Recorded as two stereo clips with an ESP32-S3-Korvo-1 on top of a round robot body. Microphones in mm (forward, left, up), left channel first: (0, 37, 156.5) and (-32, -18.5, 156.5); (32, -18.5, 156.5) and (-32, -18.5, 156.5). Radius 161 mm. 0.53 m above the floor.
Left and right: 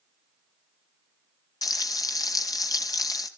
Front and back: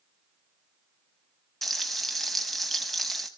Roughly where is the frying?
Left.